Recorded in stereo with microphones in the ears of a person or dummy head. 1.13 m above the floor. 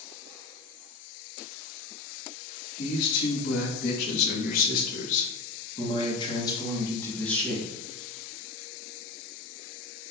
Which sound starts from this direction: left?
A man speaking, at 2.8 s.